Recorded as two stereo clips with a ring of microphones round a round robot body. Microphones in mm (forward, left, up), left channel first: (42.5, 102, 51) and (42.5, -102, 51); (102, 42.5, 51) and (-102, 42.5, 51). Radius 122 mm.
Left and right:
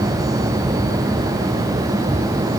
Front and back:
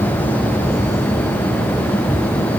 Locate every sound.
Only background noise.